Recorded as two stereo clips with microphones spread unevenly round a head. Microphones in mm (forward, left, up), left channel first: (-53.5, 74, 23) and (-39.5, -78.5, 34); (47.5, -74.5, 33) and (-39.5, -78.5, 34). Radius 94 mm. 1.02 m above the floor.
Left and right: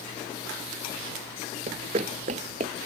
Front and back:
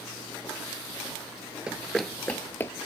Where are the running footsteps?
105° right; by 2.7 s 50° right.